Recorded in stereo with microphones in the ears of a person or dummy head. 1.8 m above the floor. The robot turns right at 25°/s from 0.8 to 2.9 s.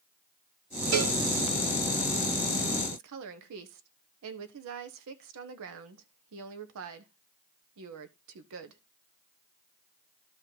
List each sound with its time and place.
0.9 s a cowbell: 65° right (ahead or behind), 1.8 m
2.9 s a woman speaking: 65° right (ahead or behind), 1.2 m